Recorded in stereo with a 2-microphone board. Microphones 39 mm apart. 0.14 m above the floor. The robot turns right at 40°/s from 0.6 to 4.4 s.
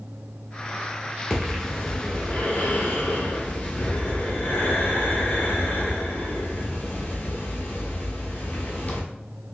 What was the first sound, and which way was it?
Breathing, 15° right.